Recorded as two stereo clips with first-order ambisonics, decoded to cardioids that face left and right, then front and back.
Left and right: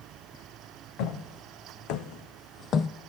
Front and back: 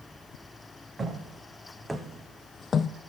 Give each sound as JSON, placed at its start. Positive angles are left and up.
{"t": 1.0, "sound": "footsteps", "azimuth_deg": 105, "distance_m": 2.0}